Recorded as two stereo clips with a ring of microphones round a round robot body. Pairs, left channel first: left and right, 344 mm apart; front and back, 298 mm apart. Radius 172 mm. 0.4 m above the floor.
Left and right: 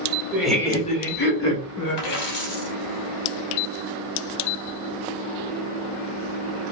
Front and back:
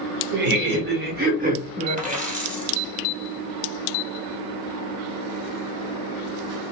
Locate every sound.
0.3 s laughter: 170° right, 0.9 m; by 2.2 s 110° left, 1.4 m
2.0 s a dropped coin: 115° left, 1.5 m